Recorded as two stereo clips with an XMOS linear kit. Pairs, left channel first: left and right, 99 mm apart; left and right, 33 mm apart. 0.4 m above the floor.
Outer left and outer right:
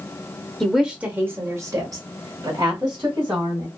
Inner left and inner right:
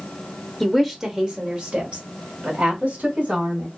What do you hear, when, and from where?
0.6 s a woman speaking: centre (ahead or behind), 0.8 m; by 3.7 s 60° right (ahead or behind), 2 m